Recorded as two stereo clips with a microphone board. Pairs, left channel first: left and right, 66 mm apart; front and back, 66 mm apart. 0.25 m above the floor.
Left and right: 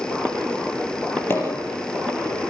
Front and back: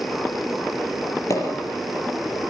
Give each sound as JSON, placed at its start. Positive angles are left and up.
{"t": 1.3, "sound": "a pop", "azimuth_deg": 35, "distance_m": 6.5}